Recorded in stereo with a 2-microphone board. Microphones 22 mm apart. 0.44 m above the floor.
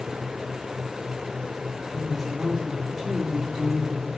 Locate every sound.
1.9 s a woman speaking: 10° right (ahead or behind), 5.5 m; by 4.1 s 20° right (ahead or behind), 9 m